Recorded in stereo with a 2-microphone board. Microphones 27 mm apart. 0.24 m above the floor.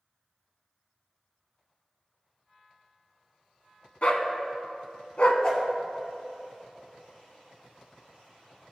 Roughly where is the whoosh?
Left.